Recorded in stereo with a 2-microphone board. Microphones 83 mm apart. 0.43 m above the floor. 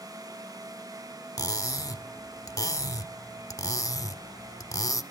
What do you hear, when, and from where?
1.4 s cutlery clinking: 40° left (ahead or behind), 0.6 m